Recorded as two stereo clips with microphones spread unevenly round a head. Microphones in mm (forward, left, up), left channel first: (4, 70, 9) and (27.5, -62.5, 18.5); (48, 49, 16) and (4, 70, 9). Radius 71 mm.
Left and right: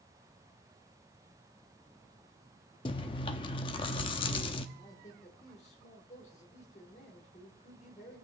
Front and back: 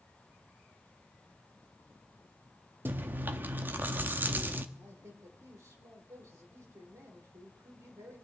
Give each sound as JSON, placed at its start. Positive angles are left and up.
{"t": 2.9, "sound": "chewing", "azimuth_deg": 130, "distance_m": 0.7}
{"t": 4.8, "sound": "a man speaking", "azimuth_deg": 145, "distance_m": 3.0}